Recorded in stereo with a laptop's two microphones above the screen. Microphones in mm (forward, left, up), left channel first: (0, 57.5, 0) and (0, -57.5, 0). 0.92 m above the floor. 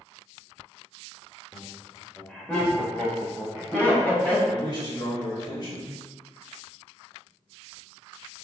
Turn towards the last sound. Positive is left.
turn(degrees=40)  # may be behind; listen again after turning